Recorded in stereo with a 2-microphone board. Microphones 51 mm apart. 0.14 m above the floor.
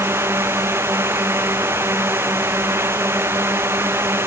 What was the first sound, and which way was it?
A drone, 50° right (ahead or behind).